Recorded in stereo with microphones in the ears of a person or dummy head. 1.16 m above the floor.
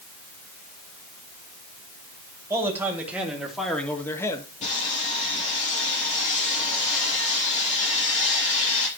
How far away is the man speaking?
About 2.5 m.